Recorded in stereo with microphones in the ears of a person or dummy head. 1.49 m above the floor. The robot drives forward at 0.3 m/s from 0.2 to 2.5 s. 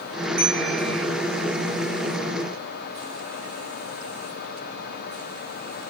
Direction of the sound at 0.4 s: 35° right (ahead or behind).